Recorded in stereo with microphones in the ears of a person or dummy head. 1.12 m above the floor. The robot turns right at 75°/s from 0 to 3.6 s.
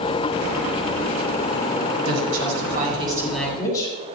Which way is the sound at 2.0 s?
100° right.